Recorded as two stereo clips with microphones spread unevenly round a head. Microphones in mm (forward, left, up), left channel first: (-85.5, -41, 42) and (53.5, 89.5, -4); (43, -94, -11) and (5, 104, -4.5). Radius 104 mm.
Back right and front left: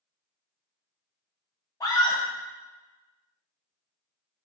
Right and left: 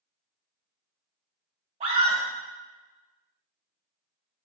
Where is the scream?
160° left, 1.0 m.